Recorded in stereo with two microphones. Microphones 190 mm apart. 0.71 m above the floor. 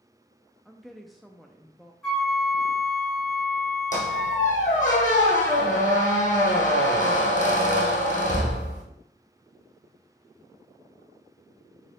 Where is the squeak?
40° left (ahead or behind), 1.8 m.